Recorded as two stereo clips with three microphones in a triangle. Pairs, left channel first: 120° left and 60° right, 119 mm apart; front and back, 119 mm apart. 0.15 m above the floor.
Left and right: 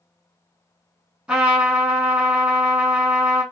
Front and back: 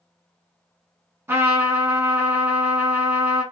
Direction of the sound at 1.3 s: 135° right.